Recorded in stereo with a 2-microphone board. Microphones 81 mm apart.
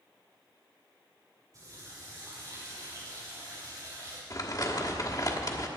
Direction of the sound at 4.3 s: 50° left (ahead or behind).